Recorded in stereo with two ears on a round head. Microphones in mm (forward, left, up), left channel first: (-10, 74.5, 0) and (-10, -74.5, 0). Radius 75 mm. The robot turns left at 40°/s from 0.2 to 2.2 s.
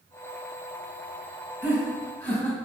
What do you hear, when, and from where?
1.6 s laughter: 5° right (ahead or behind), 2.5 m; by 2.6 s 15° left (ahead or behind), 2.5 m